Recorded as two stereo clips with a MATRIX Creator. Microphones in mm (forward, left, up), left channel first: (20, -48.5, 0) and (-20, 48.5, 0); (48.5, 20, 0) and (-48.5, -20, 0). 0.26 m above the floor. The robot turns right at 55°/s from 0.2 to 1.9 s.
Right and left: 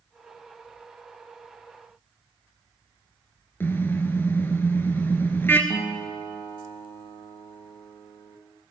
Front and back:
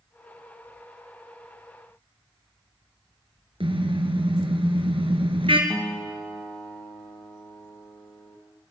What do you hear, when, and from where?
3.6 s a car horn: 135° right, 2.5 m
5.7 s a guitar: 50° right, 5.5 m